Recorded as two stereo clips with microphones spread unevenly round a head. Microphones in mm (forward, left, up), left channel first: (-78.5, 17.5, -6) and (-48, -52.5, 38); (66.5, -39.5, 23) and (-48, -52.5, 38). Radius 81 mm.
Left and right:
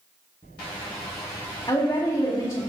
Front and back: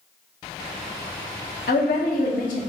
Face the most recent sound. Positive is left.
turn(degrees=40)